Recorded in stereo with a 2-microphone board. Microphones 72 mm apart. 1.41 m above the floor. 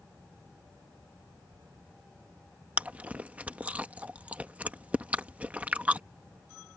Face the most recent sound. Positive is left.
turn(degrees=-20)  # may be behind; listen again after turning